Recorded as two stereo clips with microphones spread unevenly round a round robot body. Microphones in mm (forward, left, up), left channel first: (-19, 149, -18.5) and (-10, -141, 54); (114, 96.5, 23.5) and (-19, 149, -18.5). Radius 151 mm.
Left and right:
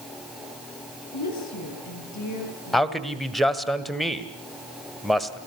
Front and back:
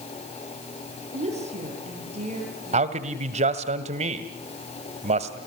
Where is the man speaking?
175° left, 1.6 m.